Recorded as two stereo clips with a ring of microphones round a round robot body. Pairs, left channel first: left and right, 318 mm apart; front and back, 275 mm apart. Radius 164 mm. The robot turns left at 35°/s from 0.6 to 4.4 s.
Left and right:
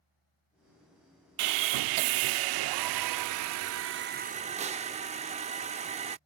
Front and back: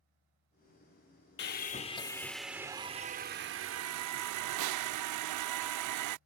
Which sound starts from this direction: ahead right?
Sawing, at 1.4 s.